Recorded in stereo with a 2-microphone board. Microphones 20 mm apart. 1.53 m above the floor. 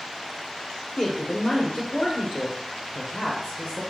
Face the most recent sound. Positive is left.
turn(degrees=70)  # may be behind; listen again after turning